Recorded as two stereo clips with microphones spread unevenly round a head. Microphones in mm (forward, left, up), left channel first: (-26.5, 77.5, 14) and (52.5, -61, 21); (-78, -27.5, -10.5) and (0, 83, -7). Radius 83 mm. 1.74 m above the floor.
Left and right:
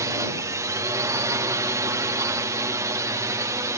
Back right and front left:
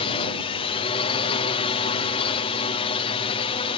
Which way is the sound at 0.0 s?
125° right.